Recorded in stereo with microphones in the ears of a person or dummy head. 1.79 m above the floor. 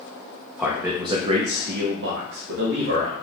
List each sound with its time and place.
0.6 s a man speaking: 5° right (ahead or behind), 0.6 m; by 3.1 s 80° right, 1.1 m